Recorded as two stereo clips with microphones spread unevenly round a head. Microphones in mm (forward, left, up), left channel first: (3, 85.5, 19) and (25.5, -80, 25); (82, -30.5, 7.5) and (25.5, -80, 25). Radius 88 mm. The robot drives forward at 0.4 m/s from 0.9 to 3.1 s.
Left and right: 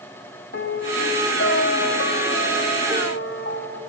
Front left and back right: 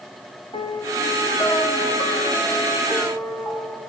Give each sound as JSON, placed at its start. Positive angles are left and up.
{"t": 0.5, "sound": "a piano", "azimuth_deg": 85, "distance_m": 1.5}